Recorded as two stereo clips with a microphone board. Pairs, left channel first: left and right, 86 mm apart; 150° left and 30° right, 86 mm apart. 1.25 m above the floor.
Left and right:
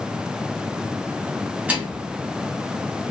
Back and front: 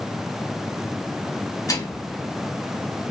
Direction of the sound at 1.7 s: 165° right.